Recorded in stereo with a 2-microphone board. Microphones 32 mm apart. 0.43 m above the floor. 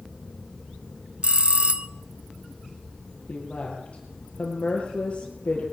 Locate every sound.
1.2 s a bell: 40° right (ahead or behind), 1.0 m
3.3 s a woman speaking: 40° left (ahead or behind), 8 m